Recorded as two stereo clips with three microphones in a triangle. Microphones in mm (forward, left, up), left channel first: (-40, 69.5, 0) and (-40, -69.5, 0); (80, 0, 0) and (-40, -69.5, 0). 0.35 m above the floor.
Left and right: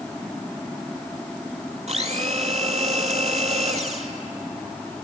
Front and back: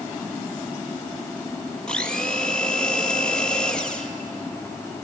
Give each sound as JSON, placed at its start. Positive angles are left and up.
{"t": 1.9, "sound": "a blender", "azimuth_deg": -55, "distance_m": 1.5}